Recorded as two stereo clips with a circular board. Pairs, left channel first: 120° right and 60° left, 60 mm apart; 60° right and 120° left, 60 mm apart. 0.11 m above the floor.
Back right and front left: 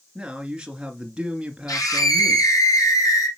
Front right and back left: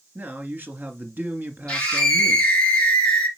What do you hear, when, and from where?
0.1 s a man speaking: 120° left, 1.7 m
1.7 s a scream: 130° right, 4.5 m